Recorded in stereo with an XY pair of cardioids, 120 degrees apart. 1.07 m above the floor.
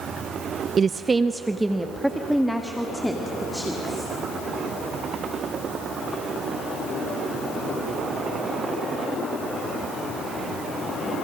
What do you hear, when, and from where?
0.8 s a woman speaking: 40° right, 0.6 m; by 4.1 s 5° left, 2.5 m